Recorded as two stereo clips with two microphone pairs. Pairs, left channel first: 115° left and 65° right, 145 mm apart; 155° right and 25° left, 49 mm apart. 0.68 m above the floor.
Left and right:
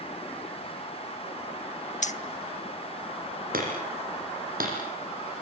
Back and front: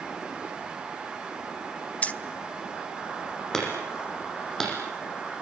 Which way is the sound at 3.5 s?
75° right.